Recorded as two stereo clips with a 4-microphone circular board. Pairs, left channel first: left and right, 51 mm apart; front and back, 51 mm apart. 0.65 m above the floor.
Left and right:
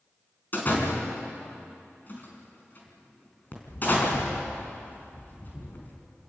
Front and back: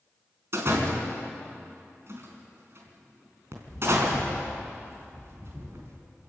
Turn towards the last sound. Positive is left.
turn(degrees=140)